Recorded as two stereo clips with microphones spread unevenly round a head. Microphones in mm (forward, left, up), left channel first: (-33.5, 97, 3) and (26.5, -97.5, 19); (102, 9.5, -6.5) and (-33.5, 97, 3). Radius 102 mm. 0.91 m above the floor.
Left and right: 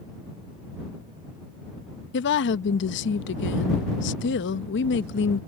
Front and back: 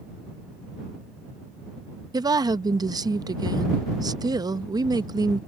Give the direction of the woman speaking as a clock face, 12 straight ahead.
9 o'clock.